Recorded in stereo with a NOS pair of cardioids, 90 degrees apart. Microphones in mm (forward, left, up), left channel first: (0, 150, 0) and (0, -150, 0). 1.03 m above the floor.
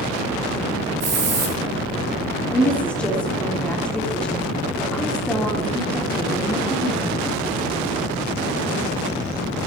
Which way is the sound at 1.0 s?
50° right.